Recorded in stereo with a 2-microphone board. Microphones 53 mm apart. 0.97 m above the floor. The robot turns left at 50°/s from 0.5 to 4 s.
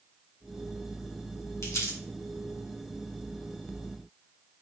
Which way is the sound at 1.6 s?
65° left (ahead or behind).